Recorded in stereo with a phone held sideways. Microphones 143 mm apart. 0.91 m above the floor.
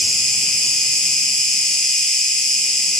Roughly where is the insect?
Centre.